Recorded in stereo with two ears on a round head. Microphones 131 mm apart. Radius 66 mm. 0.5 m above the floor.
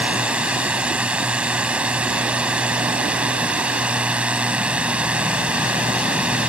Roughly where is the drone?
Centre.